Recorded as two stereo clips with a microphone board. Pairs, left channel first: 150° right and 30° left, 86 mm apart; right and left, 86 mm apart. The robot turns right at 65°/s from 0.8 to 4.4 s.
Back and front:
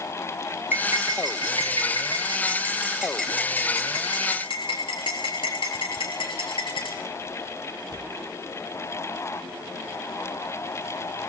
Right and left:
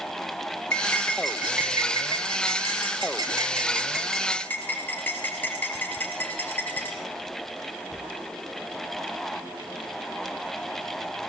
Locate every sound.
0.7 s cutlery clinking: 30° right, 4.5 m; by 7.0 s 160° right, 4.5 m